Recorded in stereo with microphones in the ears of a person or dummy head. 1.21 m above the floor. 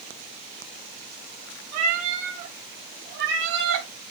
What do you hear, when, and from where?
1.7 s a cat meowing: 40° right (ahead or behind), 3.5 m; by 3.9 s 75° right (ahead or behind), 3 m